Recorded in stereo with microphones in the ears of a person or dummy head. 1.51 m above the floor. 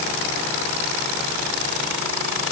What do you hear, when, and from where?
Only background noise.